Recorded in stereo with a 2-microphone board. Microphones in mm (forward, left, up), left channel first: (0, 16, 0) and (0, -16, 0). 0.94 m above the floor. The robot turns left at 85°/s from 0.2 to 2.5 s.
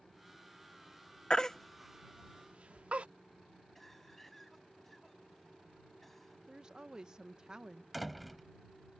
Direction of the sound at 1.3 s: 30° left (ahead or behind).